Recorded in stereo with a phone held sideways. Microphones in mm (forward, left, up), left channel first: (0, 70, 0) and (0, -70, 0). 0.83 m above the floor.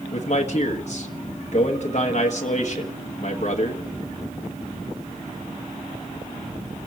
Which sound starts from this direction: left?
A man speaking, at 0.1 s.